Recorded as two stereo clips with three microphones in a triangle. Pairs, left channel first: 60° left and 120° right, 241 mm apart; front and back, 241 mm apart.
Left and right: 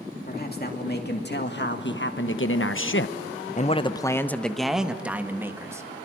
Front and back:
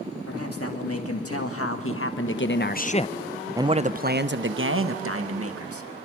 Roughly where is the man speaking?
Ahead.